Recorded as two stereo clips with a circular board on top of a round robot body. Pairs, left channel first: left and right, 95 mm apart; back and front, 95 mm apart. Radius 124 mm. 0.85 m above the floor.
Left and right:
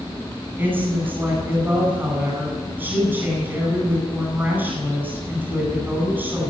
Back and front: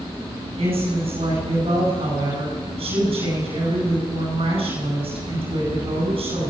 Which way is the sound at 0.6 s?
20° right.